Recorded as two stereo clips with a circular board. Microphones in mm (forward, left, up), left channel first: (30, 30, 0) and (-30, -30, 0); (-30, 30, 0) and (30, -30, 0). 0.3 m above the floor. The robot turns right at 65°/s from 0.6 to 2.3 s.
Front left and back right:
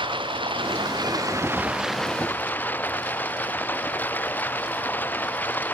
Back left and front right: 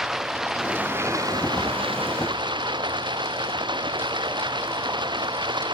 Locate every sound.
0.0 s running water: 130° right; by 5.8 s 20° right